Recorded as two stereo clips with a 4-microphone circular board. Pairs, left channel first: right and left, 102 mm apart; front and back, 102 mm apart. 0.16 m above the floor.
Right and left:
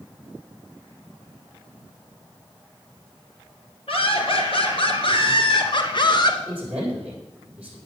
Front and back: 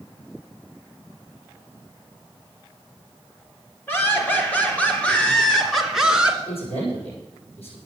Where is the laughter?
70° right, 4 m; by 6.4 s 105° right, 2 m.